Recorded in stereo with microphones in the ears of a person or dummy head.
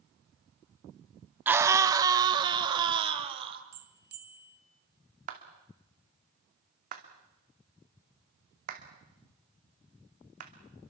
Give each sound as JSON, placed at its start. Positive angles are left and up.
{"t": 1.5, "sound": "a scream", "side_deg": -10, "distance_m": 1.3}
{"t": 3.7, "sound": "a bell", "side_deg": -50, "distance_m": 1.4}
{"t": 5.3, "sound": "a clap", "side_deg": -50, "distance_m": 2.5}